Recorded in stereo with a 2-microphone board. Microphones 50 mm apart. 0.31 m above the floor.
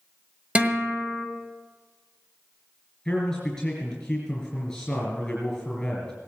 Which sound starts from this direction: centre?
A man speaking, at 3.0 s.